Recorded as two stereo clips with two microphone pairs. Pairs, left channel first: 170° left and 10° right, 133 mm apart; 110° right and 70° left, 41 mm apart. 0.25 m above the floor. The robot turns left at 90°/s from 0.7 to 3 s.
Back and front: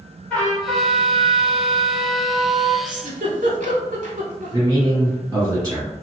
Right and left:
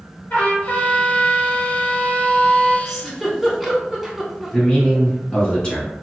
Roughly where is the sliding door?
No sliding door in this recording.